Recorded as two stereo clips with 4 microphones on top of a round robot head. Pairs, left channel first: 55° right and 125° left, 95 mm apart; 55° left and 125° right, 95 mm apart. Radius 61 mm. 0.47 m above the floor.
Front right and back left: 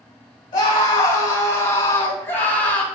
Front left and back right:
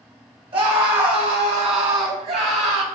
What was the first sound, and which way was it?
A scream, 100° right.